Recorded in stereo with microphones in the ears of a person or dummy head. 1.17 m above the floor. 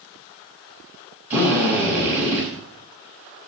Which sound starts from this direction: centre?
A drill, at 1.3 s.